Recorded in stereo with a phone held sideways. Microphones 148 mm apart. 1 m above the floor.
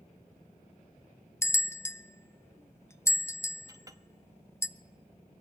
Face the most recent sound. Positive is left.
turn(degrees=-25)  # may be behind; listen again after turning